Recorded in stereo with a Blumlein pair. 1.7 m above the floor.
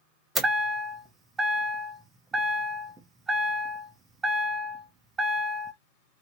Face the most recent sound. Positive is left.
turn(degrees=-15)